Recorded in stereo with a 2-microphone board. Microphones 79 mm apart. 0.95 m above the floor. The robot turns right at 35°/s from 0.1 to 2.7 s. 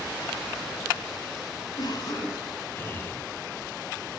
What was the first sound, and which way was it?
A cough, 120° left.